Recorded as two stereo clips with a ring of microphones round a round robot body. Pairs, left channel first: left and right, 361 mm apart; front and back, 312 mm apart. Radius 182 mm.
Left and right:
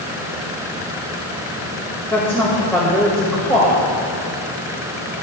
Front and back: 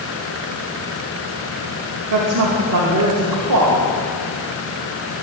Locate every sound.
2.1 s a woman speaking: 175° left, 2 m